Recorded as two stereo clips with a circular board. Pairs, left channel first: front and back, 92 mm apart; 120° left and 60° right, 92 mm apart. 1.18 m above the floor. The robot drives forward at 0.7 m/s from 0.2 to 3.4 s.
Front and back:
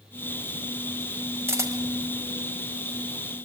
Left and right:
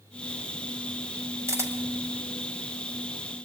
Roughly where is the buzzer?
I don't hear a buzzer.